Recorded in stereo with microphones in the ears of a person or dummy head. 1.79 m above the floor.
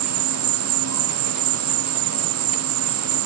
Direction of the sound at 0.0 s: 75° right (ahead or behind).